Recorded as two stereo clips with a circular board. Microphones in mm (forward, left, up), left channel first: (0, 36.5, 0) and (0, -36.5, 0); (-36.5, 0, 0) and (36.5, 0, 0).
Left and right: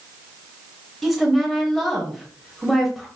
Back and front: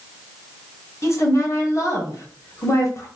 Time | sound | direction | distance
1.0 | a woman speaking | straight behind | 1.1 m